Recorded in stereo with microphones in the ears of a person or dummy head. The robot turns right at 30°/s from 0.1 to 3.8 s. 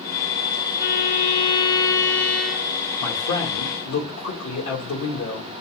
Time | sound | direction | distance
0.8 | a violin | 130° left | 0.6 m
3.0 | a man speaking | 70° left (ahead or behind) | 2 m